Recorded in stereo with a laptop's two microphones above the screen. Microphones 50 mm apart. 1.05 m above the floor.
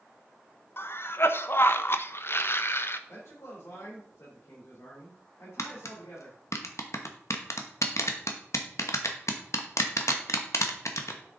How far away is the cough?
About 0.6 m.